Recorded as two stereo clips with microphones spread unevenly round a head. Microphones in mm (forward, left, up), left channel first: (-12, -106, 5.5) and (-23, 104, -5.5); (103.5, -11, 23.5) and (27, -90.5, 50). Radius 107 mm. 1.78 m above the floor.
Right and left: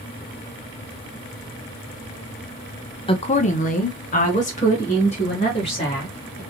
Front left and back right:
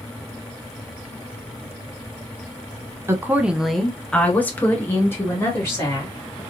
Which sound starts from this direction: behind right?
A woman speaking, at 3.1 s.